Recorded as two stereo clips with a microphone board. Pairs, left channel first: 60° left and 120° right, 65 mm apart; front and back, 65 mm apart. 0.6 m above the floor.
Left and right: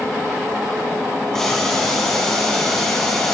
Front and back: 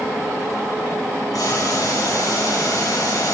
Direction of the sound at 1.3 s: 20° right.